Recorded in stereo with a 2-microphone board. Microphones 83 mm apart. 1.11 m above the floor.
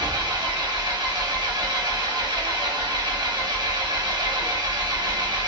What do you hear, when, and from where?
0.0 s an engine running: 55° right (ahead or behind), 1.1 m